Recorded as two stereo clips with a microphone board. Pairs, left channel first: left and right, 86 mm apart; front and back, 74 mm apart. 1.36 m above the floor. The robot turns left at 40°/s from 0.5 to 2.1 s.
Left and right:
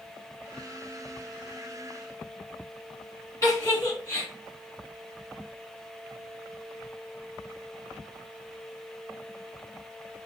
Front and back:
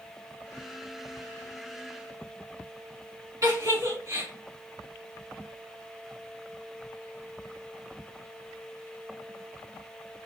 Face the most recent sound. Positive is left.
turn(degrees=145)